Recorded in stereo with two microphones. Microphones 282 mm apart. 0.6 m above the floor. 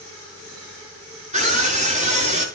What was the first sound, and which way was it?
A scream, 25° right (ahead or behind).